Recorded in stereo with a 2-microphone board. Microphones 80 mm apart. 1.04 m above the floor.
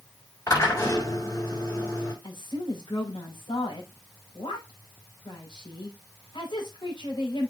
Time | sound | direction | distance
0.5 | a drill | 45° left (ahead or behind) | 5.5 m
2.2 | a woman speaking | 80° left | 5.5 m